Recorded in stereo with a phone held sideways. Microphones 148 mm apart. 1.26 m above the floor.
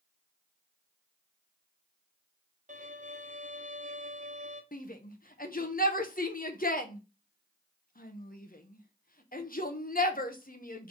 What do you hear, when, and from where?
2.7 s a violin: 60° right (ahead or behind), 0.9 m
4.7 s a shout: 75° left (ahead or behind), 1.0 m